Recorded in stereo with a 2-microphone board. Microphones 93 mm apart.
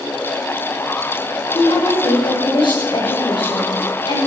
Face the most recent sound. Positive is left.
turn(degrees=70)  # may be behind; listen again after turning